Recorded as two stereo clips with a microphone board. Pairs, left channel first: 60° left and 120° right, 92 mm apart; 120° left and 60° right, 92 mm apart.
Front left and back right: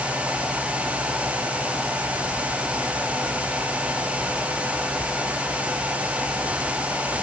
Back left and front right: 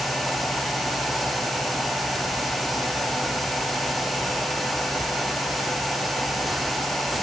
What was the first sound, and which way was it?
Only background noise.